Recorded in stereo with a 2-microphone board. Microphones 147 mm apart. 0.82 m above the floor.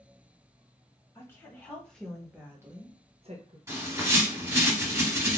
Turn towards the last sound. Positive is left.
turn(degrees=-20)  # may be behind; listen again after turning